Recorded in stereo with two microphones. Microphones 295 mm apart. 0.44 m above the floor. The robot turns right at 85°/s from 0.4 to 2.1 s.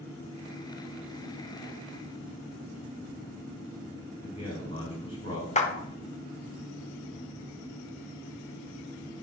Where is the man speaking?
55° right (ahead or behind), 1.4 m.